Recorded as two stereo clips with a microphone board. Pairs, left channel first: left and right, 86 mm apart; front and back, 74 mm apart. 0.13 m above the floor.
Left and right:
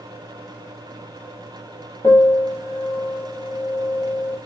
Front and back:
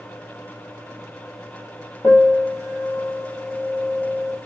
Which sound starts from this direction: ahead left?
A piano, at 2.0 s.